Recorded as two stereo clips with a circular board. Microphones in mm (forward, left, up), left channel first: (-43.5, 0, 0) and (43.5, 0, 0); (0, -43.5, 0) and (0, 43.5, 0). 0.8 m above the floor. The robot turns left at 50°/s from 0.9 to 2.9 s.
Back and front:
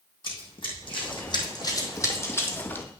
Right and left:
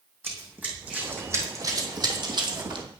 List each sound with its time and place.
0.2 s running footsteps: 155° left, 2.5 m; by 2.9 s 110° left, 1.7 m